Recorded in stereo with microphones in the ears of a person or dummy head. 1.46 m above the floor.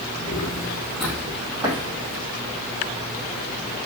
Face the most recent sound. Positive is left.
turn(degrees=-25)  # may be behind; listen again after turning